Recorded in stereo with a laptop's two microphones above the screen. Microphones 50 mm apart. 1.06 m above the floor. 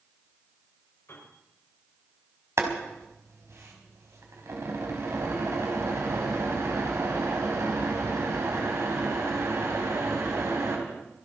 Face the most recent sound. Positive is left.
turn(degrees=-65)  # may be behind; listen again after turning